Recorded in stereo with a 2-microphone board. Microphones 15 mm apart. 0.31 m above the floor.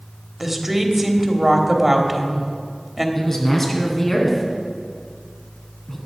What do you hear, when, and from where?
0.4 s a woman speaking: 15° right (ahead or behind), 1.3 m
3.1 s a man speaking: 20° left (ahead or behind), 2.5 m